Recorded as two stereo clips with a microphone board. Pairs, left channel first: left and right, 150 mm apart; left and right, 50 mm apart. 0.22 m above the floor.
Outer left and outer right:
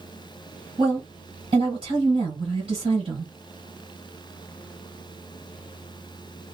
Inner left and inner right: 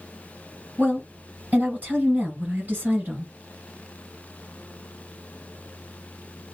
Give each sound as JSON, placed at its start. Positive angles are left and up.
{"t": 0.8, "sound": "a woman speaking", "side_deg": -35, "distance_m": 1.9}